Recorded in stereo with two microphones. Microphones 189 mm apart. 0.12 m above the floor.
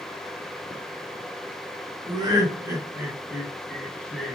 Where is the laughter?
25° right (ahead or behind), 1.7 m; by 4.4 s 5° left (ahead or behind), 1.7 m.